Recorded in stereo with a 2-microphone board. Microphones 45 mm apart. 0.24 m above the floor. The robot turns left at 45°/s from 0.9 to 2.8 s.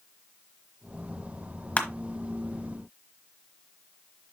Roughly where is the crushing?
Left.